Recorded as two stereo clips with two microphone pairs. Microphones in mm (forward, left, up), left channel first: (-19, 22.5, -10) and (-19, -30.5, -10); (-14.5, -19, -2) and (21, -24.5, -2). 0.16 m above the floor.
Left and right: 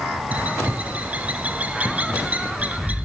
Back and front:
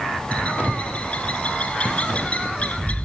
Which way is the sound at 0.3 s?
145° right.